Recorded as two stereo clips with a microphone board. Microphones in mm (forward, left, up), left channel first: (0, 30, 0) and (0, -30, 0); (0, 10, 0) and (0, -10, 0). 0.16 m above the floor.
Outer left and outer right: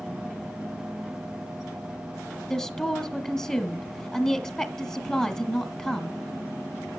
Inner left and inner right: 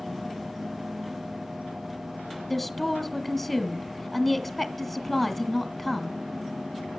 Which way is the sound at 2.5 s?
10° left (ahead or behind).